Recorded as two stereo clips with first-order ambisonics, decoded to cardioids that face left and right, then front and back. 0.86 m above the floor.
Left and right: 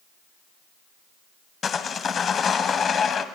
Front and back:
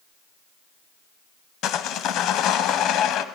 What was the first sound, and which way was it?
Sawing, 30° left.